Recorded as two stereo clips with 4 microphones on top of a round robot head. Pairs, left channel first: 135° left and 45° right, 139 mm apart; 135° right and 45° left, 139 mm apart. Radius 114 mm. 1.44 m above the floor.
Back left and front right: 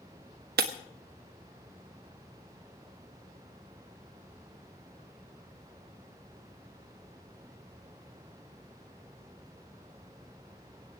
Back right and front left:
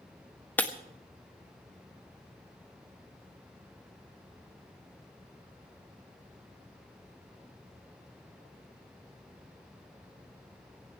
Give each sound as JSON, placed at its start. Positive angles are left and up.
{"t": 0.6, "sound": "breaking glass", "azimuth_deg": -55, "distance_m": 1.5}